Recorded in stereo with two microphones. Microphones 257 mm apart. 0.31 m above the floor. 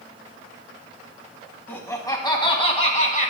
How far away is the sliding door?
No sliding door in this recording.